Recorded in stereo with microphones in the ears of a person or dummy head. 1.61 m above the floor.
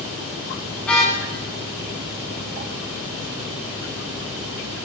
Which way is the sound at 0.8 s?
5° left (ahead or behind).